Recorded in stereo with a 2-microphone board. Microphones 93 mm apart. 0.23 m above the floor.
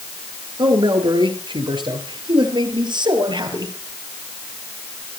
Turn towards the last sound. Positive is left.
turn(degrees=-55)  # may be behind; listen again after turning